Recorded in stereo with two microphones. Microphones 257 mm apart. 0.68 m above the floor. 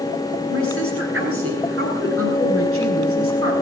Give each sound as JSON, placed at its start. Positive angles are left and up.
{"t": 0.5, "sound": "a woman speaking", "side_deg": -55, "distance_m": 9.5}